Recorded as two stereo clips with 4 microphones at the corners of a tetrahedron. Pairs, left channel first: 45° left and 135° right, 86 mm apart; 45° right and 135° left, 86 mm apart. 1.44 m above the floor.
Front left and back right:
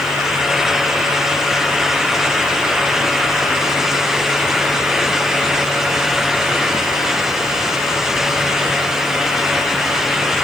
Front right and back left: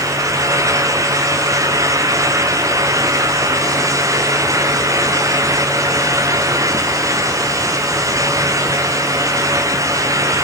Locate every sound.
Only background noise.